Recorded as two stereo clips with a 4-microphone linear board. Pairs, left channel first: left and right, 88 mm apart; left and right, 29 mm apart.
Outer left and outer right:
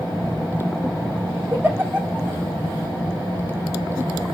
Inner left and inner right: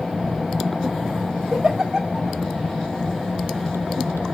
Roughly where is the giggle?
Right.